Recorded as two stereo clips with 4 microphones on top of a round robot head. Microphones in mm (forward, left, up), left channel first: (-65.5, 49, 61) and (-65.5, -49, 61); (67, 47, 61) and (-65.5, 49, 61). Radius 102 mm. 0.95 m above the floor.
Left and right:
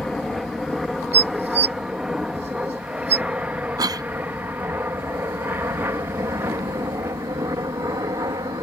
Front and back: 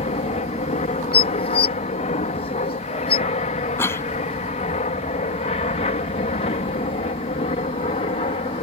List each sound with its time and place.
0.0 s an aircraft: 5° left; by 8.6 s 35° right
1.1 s dishes clattering: 60° right
3.8 s a cough: 65° right